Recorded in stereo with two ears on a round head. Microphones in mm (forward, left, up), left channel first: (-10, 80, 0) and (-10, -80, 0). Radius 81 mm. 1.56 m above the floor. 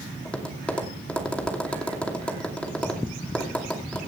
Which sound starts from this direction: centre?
Tapping, at 0.2 s.